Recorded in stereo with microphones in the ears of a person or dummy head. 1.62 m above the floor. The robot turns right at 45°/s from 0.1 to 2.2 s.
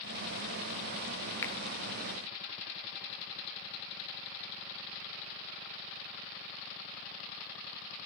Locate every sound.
1.4 s a finger snap: 15° left (ahead or behind), 0.6 m; by 1.5 s 10° left (ahead or behind), 0.6 m